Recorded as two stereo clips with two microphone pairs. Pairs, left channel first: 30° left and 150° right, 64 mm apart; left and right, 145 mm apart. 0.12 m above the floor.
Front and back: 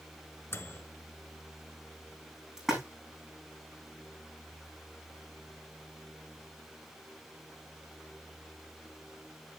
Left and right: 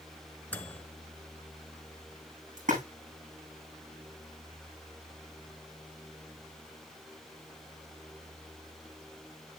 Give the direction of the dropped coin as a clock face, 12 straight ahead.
No dropped coin in this recording.